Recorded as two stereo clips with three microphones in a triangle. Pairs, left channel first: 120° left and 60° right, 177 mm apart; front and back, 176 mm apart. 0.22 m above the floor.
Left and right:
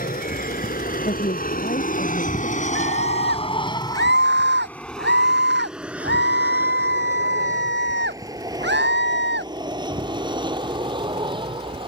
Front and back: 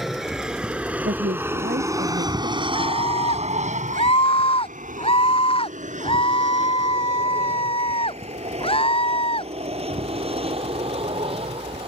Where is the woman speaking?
155° left.